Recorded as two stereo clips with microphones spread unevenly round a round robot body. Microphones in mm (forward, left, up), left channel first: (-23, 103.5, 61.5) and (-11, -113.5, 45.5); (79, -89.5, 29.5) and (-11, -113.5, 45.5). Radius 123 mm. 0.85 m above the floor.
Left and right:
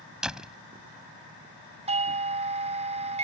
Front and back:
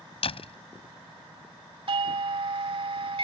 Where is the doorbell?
145° right.